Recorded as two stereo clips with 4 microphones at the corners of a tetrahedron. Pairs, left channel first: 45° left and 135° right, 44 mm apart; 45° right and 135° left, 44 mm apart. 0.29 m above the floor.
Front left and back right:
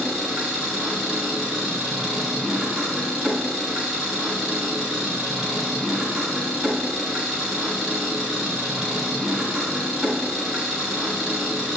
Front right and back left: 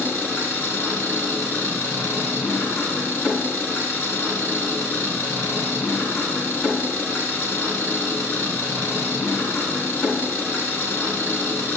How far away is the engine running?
About 2 m.